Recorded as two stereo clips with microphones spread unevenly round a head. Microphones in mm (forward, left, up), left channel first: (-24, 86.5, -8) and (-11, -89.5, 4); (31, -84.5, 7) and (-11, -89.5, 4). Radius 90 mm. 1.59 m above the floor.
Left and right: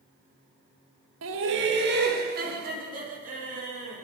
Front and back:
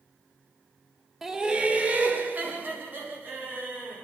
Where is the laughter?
90° right, 1.1 m; by 4.0 s 135° right, 5 m.